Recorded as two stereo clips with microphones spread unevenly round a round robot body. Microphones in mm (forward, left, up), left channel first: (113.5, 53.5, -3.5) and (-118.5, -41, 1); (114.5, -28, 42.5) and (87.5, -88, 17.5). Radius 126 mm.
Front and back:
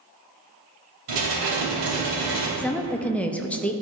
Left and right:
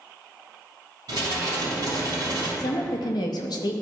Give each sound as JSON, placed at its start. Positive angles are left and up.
{"t": 1.1, "sound": "dishes clattering", "azimuth_deg": -160, "distance_m": 3.0}
{"t": 2.6, "sound": "a woman speaking", "azimuth_deg": 105, "distance_m": 0.5}